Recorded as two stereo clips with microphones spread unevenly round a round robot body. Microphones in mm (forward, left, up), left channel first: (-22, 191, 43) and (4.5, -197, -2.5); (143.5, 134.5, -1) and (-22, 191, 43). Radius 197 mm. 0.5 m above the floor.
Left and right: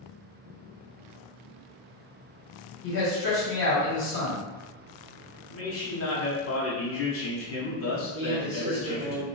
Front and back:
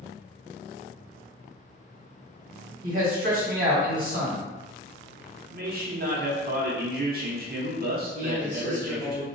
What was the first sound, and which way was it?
A man speaking, 145° left.